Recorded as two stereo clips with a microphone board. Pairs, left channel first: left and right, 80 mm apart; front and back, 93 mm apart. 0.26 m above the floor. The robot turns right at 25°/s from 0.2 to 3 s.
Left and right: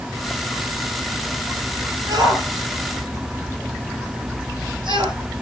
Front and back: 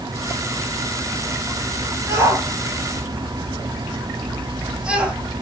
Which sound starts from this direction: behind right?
A shout, at 2.1 s.